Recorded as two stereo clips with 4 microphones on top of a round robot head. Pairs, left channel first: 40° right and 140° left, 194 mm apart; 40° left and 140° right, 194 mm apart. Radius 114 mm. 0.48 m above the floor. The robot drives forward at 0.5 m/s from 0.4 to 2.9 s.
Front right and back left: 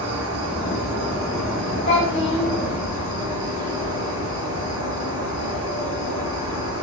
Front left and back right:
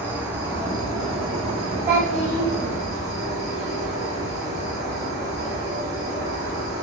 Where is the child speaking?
90° right, 1.1 m; by 2.5 s 105° right, 1.1 m.